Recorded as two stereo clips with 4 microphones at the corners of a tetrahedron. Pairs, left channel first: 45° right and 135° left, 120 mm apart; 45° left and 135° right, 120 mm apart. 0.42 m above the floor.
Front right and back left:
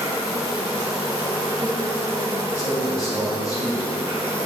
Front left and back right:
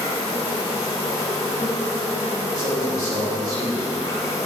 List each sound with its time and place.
0.0 s an insect: 80° left, 1.4 m
2.5 s a man speaking: 95° right, 1.5 m